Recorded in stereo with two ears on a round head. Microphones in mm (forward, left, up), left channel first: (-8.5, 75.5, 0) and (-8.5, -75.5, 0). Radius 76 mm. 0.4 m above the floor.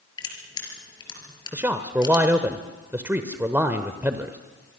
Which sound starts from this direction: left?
Crushing, at 0.2 s.